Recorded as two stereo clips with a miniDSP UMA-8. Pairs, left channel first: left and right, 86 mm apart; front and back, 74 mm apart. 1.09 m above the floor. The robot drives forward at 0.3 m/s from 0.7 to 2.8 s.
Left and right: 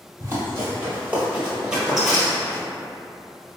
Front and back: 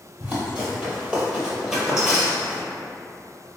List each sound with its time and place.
0.2 s running footsteps: 125° right, 1.4 m; by 2.6 s 105° left, 1.0 m